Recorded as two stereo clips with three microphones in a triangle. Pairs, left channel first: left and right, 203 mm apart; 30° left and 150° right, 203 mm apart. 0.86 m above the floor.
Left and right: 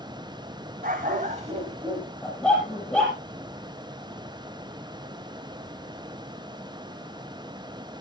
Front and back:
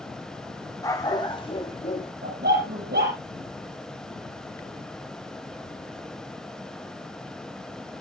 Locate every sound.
0.8 s a dog barking: 45° right, 2 m; by 2.1 s 25° right, 2 m
2.2 s a dog barking: straight behind, 6.5 m